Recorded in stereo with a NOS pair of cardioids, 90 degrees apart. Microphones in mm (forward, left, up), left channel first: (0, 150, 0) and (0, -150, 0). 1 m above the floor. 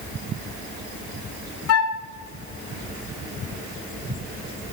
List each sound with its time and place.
1.7 s a flute: 55° left, 0.5 m